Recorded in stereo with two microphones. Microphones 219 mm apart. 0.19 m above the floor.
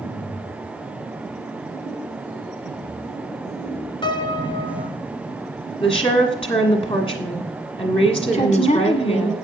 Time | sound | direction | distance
4.0 | a piano | 20° left (ahead or behind) | 0.8 m
5.8 | a woman speaking | 25° left (ahead or behind) | 1.6 m
8.3 | a woman speaking | 35° left (ahead or behind) | 1.5 m